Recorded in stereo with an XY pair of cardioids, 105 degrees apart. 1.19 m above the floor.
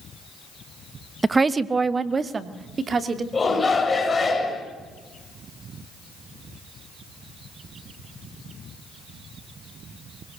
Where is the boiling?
I don't hear boiling.